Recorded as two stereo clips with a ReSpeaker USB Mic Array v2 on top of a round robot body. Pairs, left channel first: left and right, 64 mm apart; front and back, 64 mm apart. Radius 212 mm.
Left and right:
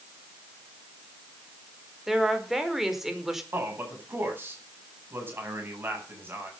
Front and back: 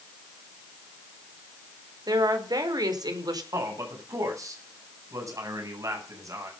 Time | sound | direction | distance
2.1 | a woman speaking | 175° right | 5 m
3.5 | a man speaking | 145° right | 9 m